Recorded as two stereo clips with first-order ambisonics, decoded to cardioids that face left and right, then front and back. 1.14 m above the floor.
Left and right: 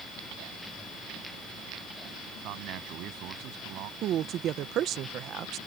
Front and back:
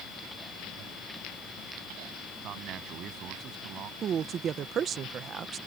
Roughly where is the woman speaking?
Behind right.